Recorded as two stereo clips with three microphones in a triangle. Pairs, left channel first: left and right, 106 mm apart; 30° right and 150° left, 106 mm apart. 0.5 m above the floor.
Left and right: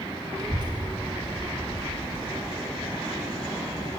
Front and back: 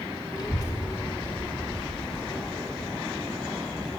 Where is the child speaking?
55° right, 0.9 m; by 3.9 s 125° right, 3 m.